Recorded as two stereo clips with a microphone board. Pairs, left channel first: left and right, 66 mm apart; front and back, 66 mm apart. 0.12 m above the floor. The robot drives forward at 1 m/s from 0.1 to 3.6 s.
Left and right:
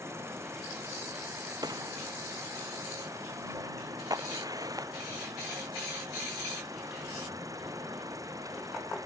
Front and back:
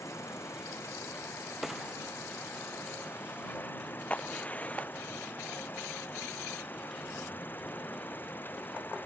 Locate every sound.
0.0 s an insect: 45° right; by 9.1 s 60° right
1.6 s a gunshot: 95° right
4.1 s a crack: 70° right